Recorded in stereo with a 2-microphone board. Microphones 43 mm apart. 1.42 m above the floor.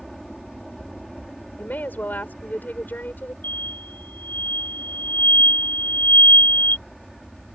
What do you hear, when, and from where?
0.0 s an aircraft: 5° left (ahead or behind)
1.6 s a woman speaking: 45° left (ahead or behind)
3.4 s an explosion: 50° left (ahead or behind)